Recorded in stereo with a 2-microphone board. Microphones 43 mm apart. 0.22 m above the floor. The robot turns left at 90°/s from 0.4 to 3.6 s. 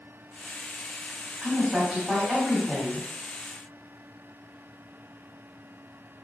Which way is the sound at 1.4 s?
10° right (ahead or behind).